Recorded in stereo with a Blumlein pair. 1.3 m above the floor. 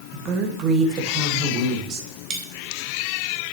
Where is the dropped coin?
25° right, 2.5 m.